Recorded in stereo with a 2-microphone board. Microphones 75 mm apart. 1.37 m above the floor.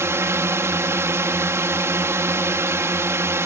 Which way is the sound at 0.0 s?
40° right (ahead or behind).